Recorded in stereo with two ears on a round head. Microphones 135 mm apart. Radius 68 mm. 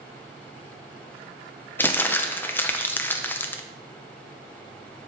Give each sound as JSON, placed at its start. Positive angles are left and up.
{"t": 1.8, "sound": "crumpling", "side_deg": 15, "distance_m": 0.5}